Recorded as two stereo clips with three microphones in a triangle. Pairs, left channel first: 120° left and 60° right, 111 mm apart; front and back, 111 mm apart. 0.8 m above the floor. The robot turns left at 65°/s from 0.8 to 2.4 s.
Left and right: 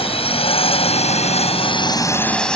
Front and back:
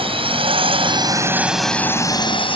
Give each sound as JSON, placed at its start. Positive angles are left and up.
{"t": 0.0, "sound": "a drone", "azimuth_deg": 150}